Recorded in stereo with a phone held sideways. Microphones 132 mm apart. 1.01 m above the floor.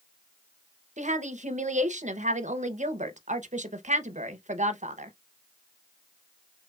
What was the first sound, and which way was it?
A woman speaking, 75° right (ahead or behind).